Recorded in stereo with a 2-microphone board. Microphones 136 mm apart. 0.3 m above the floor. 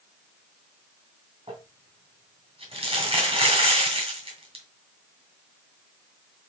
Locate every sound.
1.5 s crumpling: 45° right (ahead or behind), 1.7 m